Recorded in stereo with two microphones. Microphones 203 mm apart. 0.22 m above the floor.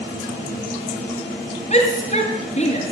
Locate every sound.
1.7 s a shout: 35° left (ahead or behind), 2.0 m